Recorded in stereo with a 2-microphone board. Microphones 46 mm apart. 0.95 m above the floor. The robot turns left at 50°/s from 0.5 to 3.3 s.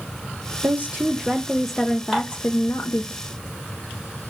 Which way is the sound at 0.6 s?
130° right.